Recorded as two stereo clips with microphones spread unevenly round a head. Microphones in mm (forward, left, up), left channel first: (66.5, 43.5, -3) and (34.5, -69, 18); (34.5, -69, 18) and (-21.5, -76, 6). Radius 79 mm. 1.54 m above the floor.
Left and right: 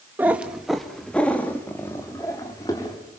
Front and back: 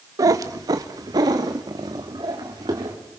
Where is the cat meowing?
170° right, 1.0 m; by 3.0 s 145° left, 2.5 m.